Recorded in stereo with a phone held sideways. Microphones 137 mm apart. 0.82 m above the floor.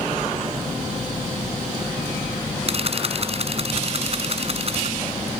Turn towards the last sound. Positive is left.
turn(degrees=-45)  # may be behind; listen again after turning